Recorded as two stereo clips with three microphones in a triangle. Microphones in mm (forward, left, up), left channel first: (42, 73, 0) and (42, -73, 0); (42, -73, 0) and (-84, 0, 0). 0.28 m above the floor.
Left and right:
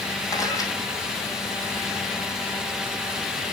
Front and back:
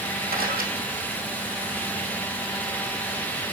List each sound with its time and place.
0.3 s a camera shutter: 155° left, 3 m